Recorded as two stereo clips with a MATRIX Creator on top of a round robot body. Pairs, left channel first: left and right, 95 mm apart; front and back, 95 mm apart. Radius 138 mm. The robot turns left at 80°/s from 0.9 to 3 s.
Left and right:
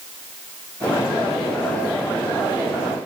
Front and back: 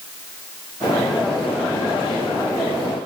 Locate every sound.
Only background noise.